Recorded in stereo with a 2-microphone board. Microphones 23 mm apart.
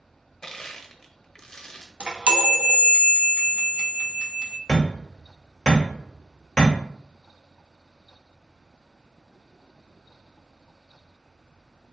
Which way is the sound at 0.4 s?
30° left (ahead or behind).